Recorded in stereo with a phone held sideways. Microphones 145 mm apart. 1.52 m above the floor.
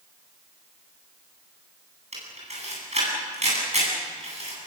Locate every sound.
2.1 s a camera shutter: 50° right (ahead or behind), 9.5 m